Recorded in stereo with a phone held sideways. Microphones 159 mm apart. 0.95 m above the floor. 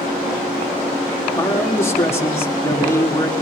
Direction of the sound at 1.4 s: 15° left (ahead or behind).